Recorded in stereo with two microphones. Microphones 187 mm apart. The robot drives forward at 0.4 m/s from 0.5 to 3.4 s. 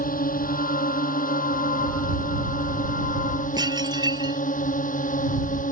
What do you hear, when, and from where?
0.0 s a drone: 50° left (ahead or behind); by 5.7 s 45° left (ahead or behind)
3.6 s dishes clattering: 25° right (ahead or behind)